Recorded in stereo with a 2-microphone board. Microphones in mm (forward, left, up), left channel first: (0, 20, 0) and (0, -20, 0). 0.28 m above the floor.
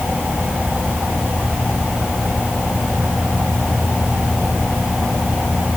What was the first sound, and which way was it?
Only background noise.